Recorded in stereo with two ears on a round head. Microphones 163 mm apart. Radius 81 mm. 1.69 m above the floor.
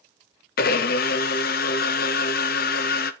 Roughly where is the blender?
Left.